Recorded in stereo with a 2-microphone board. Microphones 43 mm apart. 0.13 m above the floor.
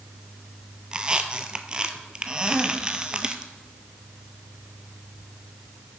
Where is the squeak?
20° right (ahead or behind), 0.6 m.